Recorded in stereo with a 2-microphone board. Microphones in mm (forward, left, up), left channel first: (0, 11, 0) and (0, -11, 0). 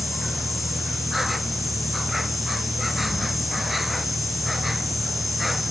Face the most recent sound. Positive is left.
turn(degrees=-5)  # may be behind; listen again after turning